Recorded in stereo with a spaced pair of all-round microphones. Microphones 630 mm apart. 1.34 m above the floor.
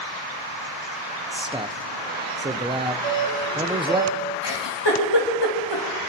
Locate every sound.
1.3 s a man speaking: 10° right (ahead or behind), 0.7 m
3.0 s a doorbell: 55° right (ahead or behind), 4 m
4.4 s a giggle: 40° left (ahead or behind), 3 m